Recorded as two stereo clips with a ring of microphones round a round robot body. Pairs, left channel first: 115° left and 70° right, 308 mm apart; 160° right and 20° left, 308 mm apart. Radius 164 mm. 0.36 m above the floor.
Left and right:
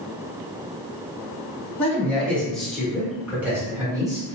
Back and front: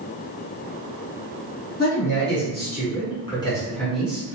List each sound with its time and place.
1.8 s a man speaking: 165° right, 1.6 m; by 4.4 s 35° right, 1.3 m